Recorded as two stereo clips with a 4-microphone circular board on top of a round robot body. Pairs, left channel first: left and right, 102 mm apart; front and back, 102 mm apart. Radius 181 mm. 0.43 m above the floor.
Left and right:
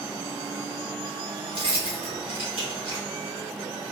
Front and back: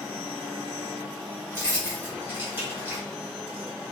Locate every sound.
1.5 s keys jangling: 110° right, 1.6 m